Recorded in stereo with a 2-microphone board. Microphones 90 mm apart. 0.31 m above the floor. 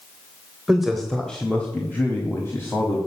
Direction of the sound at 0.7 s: 5° right (ahead or behind).